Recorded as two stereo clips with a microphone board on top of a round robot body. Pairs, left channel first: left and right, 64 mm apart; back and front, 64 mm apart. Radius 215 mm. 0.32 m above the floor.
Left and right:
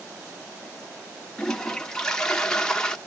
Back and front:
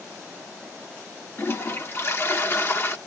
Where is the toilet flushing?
165° left, 1.2 m.